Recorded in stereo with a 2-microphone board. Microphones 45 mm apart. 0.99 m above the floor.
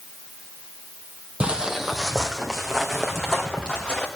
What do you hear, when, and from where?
1.4 s footsteps: 25° right (ahead or behind), 1.2 m; by 4.1 s 15° left (ahead or behind), 4 m